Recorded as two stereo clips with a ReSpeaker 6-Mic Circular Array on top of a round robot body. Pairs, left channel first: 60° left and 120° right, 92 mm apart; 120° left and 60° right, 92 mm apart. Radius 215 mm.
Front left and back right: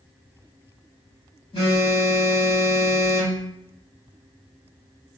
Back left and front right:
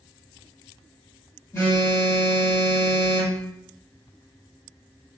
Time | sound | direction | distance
1.5 | a phone buzzing | 65° left | 1.9 m